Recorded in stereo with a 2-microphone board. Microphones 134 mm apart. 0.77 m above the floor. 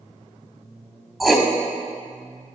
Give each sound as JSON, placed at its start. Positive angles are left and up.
{"t": 1.2, "sound": "writing", "side_deg": 0, "distance_m": 0.8}